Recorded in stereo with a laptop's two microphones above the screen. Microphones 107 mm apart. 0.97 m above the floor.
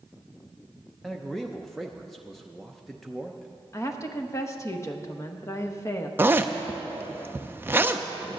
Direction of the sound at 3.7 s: 30° left (ahead or behind).